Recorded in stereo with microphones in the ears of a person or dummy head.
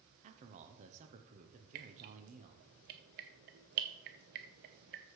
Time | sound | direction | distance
0.2 | a man speaking | 40° right (ahead or behind) | 0.9 m
1.8 | dripping | 45° right (ahead or behind) | 0.7 m